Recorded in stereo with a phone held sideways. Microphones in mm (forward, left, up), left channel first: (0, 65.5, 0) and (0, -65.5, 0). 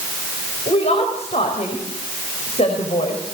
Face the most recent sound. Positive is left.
turn(degrees=55)  # may be behind; listen again after turning